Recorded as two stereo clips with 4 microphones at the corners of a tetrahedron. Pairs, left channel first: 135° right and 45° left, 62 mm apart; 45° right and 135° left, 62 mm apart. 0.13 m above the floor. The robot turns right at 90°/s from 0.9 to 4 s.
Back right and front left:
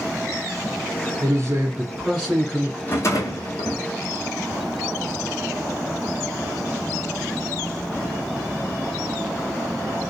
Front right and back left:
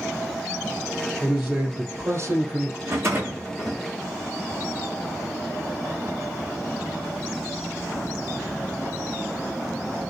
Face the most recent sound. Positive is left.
turn(degrees=-95)